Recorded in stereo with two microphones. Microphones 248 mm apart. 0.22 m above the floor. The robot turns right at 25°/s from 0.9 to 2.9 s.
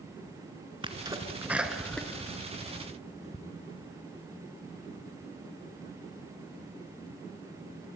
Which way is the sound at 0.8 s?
20° right (ahead or behind).